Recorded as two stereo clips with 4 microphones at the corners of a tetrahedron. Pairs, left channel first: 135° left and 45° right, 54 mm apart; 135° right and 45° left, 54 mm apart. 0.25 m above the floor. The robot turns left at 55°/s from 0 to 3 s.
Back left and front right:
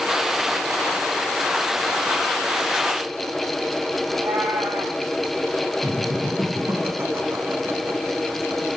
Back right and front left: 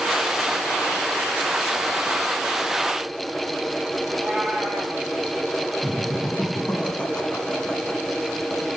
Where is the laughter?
65° right, 3 m.